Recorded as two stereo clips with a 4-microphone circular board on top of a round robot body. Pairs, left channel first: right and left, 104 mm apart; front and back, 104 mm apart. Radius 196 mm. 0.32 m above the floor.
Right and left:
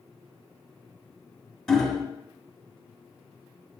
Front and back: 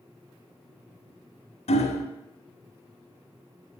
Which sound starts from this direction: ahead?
Hammering, at 1.7 s.